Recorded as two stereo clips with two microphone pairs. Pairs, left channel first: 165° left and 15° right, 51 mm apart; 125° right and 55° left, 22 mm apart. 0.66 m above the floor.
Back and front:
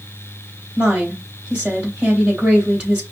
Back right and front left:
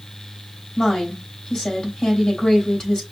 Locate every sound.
0.8 s a woman speaking: 75° right, 3 m